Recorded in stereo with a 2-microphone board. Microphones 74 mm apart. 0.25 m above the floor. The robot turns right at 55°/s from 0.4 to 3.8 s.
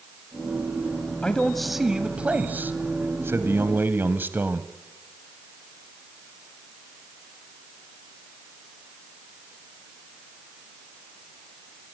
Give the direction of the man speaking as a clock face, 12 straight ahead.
7 o'clock.